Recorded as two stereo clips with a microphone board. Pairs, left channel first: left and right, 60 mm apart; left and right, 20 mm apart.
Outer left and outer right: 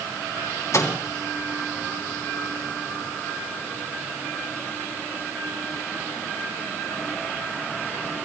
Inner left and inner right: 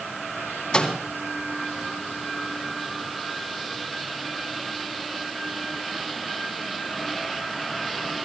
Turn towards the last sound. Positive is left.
turn(degrees=50)  # may be behind; listen again after turning